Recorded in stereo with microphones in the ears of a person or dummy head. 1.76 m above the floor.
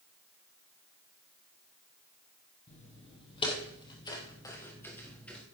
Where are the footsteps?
30° left (ahead or behind), 3.5 m; by 5.4 s centre (ahead or behind), 2.5 m.